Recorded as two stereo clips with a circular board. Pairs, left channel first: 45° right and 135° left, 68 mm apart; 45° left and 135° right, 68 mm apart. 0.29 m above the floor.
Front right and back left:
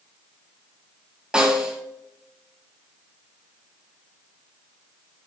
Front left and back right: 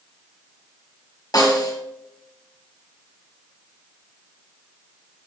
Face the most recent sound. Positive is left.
turn(degrees=60)